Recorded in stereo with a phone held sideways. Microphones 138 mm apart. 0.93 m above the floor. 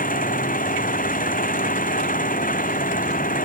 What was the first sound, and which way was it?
An engine running, 90° left.